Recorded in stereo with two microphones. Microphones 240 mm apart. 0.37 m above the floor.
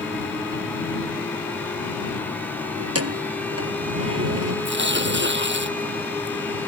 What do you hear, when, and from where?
2.8 s keys jangling: 85° right
4.7 s tearing paper: 50° right (ahead or behind)